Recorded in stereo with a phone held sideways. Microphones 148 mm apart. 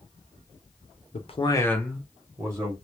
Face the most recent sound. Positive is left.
turn(degrees=-25)  # may be behind; listen again after turning